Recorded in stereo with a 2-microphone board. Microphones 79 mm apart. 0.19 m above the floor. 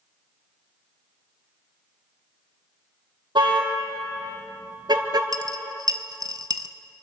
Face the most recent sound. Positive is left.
turn(degrees=-55)  # may be behind; listen again after turning